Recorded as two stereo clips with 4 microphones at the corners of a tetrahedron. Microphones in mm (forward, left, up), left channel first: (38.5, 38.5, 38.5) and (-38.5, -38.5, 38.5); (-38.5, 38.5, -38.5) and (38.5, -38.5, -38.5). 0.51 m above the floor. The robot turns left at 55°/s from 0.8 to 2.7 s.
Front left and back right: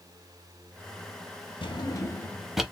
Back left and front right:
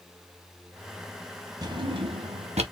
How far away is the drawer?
About 0.8 m.